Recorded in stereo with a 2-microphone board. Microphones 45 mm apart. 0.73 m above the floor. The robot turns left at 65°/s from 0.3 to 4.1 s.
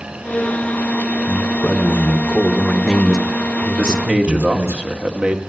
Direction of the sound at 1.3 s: 110° left.